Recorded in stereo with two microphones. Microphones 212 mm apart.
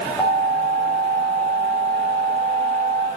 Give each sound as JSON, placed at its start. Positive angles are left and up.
{"t": 0.2, "sound": "an alarm", "side_deg": 20, "distance_m": 7.5}